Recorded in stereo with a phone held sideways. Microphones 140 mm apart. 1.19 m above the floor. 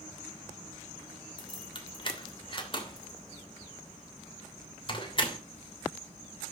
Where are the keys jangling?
35° left (ahead or behind), 2.5 m.